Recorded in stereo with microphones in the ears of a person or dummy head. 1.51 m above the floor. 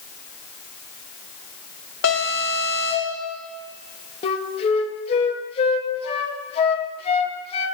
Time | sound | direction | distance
2.0 | an alarm | 80° left | 4.5 m
4.2 | a flute | 35° left (ahead or behind) | 1.5 m